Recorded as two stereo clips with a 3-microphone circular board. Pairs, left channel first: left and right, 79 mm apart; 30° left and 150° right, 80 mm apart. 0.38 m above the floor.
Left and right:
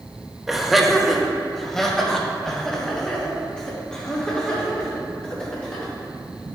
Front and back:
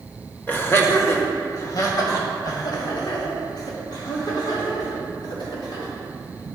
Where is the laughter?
5° right, 1.3 m; by 5.9 s 10° left, 5 m.